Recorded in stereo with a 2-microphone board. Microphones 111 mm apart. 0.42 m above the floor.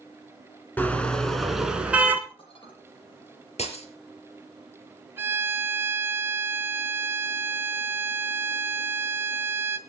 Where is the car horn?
15° left (ahead or behind), 2.5 m; by 2.2 s 15° right (ahead or behind), 2.5 m.